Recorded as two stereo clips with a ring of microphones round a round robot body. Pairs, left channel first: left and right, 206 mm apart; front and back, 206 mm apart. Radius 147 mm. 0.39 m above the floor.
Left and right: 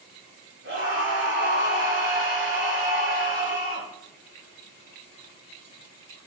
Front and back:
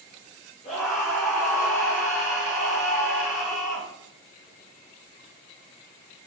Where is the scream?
70° right, 4.5 m.